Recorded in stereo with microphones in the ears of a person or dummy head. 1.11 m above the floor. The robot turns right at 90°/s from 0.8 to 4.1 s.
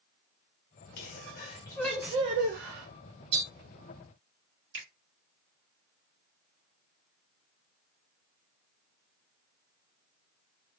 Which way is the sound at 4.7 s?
60° right (ahead or behind).